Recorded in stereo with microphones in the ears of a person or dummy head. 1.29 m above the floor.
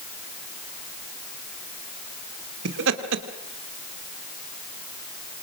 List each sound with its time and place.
2.6 s laughter: 70° right (ahead or behind), 3.5 m